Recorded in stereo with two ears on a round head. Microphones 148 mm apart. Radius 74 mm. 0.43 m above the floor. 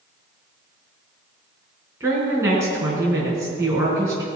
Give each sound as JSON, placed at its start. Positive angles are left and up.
{"t": 2.0, "sound": "a woman speaking", "side_deg": -20, "distance_m": 4.0}